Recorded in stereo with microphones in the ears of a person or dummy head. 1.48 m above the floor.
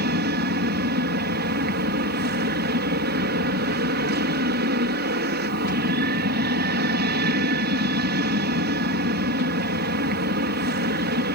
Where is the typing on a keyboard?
I don't hear typing on a keyboard.